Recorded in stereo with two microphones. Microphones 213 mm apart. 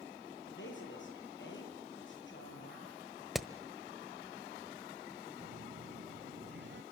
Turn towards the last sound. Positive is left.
turn(degrees=-60)  # may be behind; listen again after turning